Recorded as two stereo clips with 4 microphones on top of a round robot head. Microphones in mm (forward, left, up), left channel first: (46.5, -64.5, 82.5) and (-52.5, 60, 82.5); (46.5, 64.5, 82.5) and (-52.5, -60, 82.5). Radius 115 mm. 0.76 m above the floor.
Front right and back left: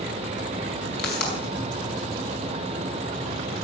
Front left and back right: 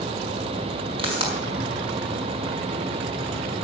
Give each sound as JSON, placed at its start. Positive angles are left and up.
{"t": 1.0, "sound": "a pop", "azimuth_deg": -70, "distance_m": 5.0}